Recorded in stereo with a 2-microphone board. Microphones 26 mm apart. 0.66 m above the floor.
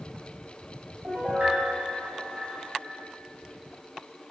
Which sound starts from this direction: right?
A piano, at 1.0 s.